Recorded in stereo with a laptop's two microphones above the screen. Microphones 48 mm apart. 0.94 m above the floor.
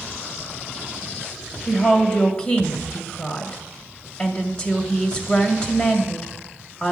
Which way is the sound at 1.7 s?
15° left (ahead or behind).